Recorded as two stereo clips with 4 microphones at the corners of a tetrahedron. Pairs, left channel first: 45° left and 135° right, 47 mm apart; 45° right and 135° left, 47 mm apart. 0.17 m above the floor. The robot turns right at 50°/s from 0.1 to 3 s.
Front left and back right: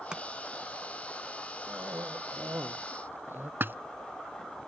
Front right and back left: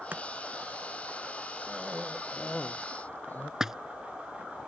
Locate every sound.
0.1 s chopping: 160° left; by 0.2 s 165° left
1.7 s a cough: 165° right; by 3.5 s 95° right
3.6 s a splash: 150° right